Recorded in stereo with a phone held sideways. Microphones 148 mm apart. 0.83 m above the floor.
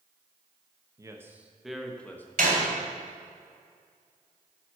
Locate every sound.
1.0 s a man speaking: 25° right (ahead or behind), 0.8 m; by 2.3 s 15° left (ahead or behind), 1.0 m
2.4 s a door slam: 75° right (ahead or behind), 2.5 m